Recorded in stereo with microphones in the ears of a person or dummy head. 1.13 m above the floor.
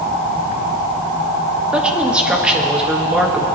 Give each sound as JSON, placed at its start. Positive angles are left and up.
{"t": 1.7, "sound": "a woman speaking", "side_deg": -5, "distance_m": 1.7}